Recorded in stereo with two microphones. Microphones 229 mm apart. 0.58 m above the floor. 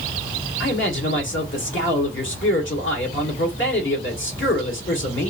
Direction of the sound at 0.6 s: 60° left (ahead or behind).